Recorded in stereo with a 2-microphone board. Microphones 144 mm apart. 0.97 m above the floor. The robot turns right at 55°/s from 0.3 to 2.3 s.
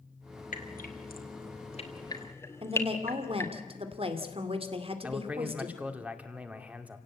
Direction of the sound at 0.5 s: 65° left (ahead or behind).